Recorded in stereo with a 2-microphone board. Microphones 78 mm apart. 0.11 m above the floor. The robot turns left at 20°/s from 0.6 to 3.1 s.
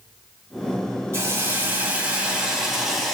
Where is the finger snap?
I don't hear a finger snap.